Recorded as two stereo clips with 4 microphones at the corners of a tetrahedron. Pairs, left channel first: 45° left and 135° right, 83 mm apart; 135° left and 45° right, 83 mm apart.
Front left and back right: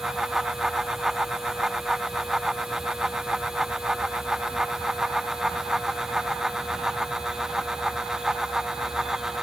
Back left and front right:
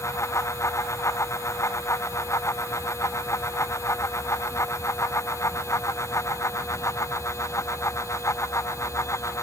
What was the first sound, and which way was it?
Only background noise.